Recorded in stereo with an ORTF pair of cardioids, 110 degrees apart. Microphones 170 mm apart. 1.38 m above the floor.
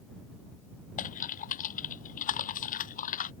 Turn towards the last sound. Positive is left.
turn(degrees=55)